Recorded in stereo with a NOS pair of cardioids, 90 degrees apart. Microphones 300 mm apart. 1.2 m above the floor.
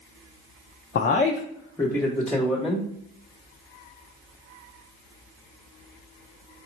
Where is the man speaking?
35° left, 0.6 m; by 2.9 s 5° right, 1.3 m.